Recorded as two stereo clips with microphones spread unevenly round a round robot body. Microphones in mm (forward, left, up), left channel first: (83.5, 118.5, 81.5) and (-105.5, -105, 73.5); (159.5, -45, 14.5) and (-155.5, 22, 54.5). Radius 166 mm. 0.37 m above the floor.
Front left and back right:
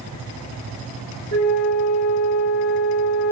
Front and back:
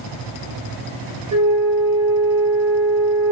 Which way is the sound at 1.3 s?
110° left.